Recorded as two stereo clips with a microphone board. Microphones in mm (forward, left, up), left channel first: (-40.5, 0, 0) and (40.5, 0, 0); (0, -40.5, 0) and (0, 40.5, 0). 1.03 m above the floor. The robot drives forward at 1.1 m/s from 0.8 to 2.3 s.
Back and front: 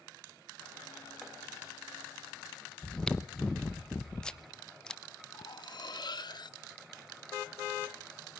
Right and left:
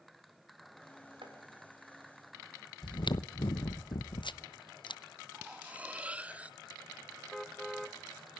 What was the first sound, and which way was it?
Chopping, 95° left.